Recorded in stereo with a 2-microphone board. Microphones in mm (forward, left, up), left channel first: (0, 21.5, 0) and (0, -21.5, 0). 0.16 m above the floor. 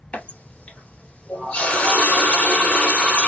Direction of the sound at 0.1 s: 25° left (ahead or behind).